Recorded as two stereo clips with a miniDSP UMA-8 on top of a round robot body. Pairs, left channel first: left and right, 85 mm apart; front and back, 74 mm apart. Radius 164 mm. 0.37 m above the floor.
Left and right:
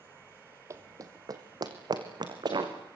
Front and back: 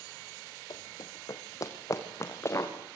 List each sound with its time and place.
0.7 s running footsteps: 35° right, 1.3 m; by 2.7 s 55° right, 3.5 m